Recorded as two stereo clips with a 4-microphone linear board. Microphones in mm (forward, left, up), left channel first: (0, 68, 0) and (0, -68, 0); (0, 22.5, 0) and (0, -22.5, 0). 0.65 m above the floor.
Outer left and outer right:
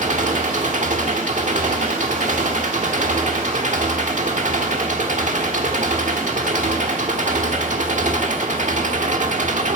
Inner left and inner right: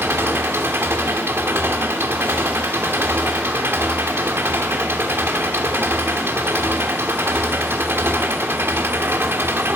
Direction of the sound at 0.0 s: 65° right (ahead or behind).